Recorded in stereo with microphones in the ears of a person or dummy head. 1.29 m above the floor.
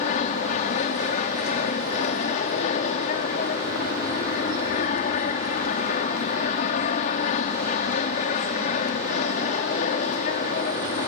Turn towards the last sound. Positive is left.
turn(degrees=45)  # may be behind; listen again after turning